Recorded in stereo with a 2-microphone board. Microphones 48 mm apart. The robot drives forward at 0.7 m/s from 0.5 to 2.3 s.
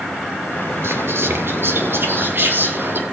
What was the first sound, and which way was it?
Whispering, 60° right (ahead or behind).